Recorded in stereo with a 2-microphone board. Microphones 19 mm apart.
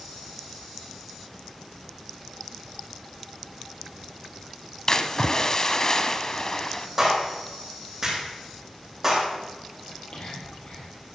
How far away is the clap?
About 8.5 m.